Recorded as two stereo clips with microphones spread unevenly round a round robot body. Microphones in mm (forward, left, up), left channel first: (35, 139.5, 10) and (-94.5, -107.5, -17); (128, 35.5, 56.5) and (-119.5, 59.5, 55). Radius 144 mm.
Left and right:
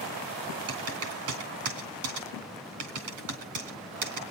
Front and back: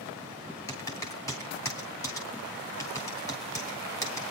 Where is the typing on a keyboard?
85° right, 3 m.